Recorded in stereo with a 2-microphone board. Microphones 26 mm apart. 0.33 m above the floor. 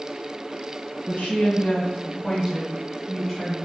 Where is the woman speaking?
65° left (ahead or behind), 2.0 m; by 3.6 s centre (ahead or behind), 1.7 m.